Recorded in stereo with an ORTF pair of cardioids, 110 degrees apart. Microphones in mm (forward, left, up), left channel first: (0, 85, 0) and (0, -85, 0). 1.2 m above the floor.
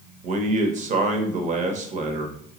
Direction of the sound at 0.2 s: 45° right.